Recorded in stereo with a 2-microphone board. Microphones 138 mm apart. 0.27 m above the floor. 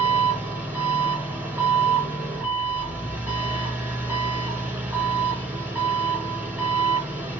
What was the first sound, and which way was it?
An engine running, 10° right (ahead or behind).